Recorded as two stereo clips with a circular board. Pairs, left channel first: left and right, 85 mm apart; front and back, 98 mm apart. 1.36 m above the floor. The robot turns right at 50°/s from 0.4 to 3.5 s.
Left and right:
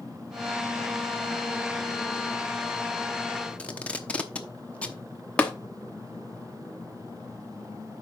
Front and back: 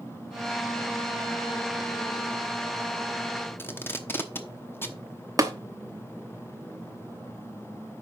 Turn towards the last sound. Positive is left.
turn(degrees=160)